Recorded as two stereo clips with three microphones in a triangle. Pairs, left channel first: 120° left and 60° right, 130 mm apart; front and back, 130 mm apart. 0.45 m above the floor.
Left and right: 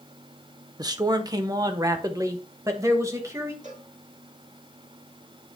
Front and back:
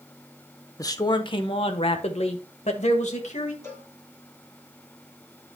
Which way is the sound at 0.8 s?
35° right.